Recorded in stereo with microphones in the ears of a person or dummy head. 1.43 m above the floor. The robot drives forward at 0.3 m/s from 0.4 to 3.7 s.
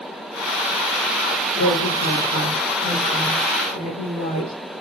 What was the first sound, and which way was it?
A woman speaking, 60° left (ahead or behind).